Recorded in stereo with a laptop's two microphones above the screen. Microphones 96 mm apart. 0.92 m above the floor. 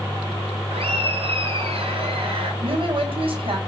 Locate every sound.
0.7 s laughter: 85° right, 7.5 m; by 2.5 s 80° right, 8.5 m
2.6 s a woman speaking: 70° right (ahead or behind), 4.5 m